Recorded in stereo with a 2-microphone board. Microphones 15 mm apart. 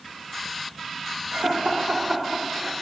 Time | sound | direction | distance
1.3 | laughter | 75° right (ahead or behind) | 1.7 m